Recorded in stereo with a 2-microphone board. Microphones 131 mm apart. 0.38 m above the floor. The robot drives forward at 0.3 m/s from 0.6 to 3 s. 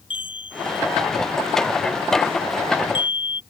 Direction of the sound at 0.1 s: 45° left (ahead or behind).